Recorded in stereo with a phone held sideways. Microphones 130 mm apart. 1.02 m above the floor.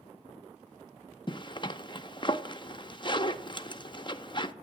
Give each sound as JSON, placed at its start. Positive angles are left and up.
{"t": 1.3, "sound": "a zipper", "side_deg": 35, "distance_m": 0.6}